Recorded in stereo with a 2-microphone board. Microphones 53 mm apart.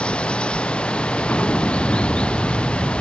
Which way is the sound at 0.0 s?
20° left (ahead or behind).